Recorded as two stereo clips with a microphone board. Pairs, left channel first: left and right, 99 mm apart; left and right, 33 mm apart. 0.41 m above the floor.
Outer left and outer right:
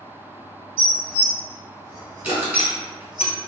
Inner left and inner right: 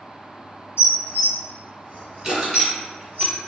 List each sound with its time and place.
0.8 s dishes clattering: 50° right (ahead or behind), 1.2 m
2.2 s crushing: 20° right (ahead or behind), 1.6 m